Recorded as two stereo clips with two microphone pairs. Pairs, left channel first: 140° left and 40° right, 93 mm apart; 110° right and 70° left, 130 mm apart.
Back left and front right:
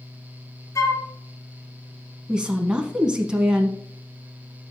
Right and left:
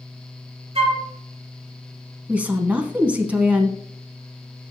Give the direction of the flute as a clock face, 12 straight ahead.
9 o'clock.